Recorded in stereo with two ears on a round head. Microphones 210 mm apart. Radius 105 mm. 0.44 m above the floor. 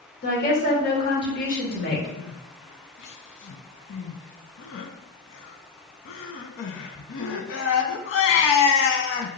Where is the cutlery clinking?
No cutlery clinking in this recording.